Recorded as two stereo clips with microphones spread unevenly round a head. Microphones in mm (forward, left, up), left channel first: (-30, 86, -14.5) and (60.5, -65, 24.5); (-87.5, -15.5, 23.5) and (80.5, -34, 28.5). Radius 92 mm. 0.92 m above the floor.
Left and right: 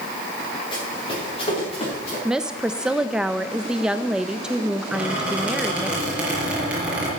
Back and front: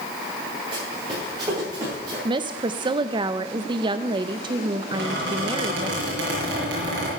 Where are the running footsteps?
60° left, 8 m; by 2.1 s 65° left, 8.5 m.